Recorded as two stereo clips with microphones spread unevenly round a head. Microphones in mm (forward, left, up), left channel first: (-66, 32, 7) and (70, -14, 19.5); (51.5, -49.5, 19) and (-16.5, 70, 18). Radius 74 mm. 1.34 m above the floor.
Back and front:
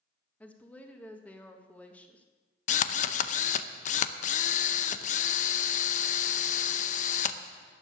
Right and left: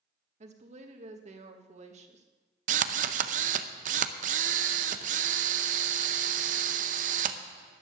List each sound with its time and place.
0.4 s a woman speaking: 80° left, 1.7 m
2.7 s a drill: 135° left, 0.6 m